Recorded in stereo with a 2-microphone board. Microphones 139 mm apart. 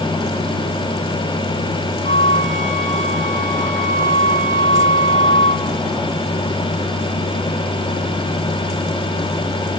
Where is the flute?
60° left (ahead or behind), 1.7 m.